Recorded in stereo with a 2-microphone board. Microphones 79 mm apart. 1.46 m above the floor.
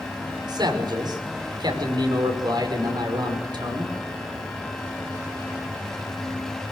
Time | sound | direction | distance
0.5 | a man speaking | 65° right (ahead or behind) | 5.5 m